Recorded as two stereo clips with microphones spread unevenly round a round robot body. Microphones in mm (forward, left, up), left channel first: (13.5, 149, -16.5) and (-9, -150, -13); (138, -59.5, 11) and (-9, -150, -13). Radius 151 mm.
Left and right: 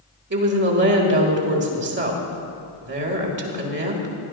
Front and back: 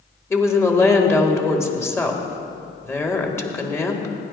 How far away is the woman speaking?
About 2.0 m.